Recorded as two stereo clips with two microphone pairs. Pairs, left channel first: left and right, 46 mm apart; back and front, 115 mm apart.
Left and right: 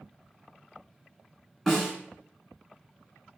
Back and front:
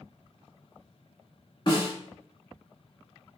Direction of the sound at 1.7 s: Straight behind.